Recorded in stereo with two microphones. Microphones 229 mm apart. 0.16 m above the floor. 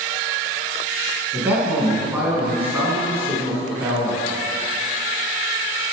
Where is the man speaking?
5° right (ahead or behind), 1.6 m.